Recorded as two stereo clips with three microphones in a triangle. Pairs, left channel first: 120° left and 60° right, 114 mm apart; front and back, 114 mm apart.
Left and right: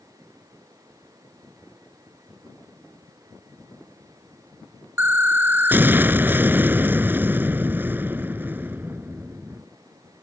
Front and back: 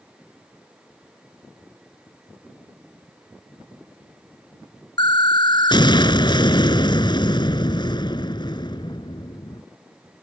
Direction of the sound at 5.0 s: Straight ahead.